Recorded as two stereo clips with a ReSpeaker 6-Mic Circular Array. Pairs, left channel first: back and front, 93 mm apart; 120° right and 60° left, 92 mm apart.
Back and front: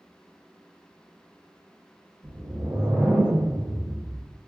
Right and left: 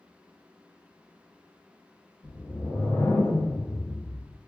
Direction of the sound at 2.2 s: 60° right.